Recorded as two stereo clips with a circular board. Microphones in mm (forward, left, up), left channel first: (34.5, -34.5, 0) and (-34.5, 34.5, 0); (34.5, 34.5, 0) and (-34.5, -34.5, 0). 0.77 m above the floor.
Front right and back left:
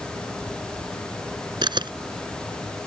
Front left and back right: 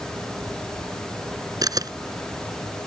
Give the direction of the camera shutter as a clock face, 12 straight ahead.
6 o'clock.